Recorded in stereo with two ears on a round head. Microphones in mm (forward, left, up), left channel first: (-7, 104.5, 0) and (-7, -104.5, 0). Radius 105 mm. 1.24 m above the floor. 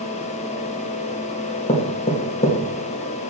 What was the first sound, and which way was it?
Knocking, 25° left (ahead or behind).